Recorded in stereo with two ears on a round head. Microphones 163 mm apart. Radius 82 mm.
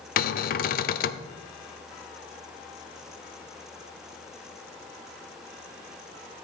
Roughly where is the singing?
No singing in this recording.